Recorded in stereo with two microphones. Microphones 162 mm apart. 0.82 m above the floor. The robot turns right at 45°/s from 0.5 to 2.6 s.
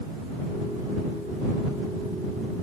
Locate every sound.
Only background noise.